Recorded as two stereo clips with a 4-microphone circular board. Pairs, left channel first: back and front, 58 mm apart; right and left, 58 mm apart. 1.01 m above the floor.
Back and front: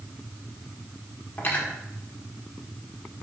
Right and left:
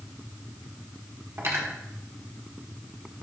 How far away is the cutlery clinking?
About 1.4 m.